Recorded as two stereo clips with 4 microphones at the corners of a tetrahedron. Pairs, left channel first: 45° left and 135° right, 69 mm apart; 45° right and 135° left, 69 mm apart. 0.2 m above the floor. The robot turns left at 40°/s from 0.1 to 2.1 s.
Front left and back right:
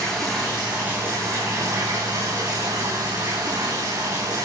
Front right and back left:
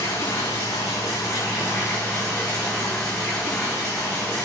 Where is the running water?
40° right, 6 m; by 4.5 s 120° right, 6 m.